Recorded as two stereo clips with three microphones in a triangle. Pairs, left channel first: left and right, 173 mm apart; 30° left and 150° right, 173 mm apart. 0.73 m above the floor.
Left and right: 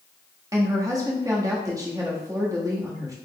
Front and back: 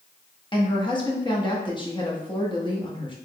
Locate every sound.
0.5 s a woman speaking: 25° right, 1.0 m